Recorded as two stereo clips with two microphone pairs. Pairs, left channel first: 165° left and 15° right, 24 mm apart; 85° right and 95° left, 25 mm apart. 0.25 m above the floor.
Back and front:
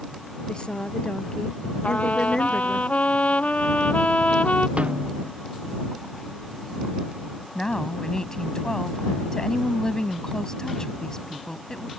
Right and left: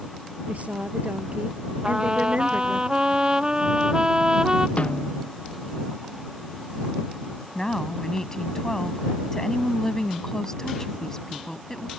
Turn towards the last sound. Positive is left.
turn(degrees=-145)